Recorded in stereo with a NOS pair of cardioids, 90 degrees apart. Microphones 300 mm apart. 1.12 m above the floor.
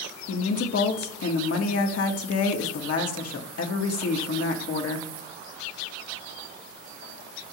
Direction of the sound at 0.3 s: 50° left.